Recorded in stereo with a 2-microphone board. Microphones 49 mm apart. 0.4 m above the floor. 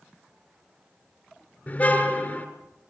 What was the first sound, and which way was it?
A car horn, 30° left (ahead or behind).